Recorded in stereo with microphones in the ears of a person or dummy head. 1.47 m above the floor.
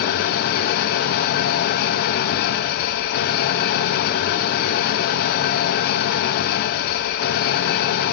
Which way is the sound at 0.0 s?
50° left (ahead or behind).